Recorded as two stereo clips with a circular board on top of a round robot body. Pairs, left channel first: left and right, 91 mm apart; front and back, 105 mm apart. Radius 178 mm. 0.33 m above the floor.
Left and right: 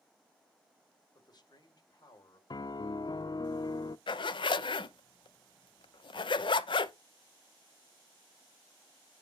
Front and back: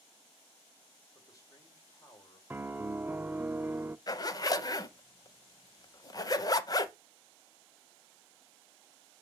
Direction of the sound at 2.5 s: 110° left.